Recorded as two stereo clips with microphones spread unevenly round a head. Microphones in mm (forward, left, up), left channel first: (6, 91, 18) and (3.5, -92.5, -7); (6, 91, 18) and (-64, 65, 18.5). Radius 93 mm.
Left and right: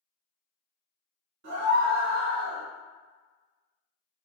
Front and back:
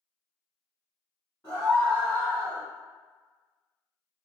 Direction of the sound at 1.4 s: 55° right.